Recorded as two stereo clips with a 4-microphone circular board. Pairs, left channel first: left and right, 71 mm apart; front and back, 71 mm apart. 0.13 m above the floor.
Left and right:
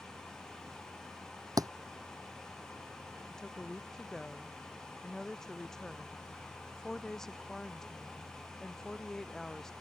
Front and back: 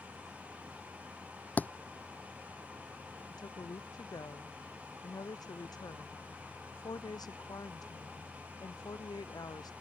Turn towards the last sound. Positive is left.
turn(degrees=10)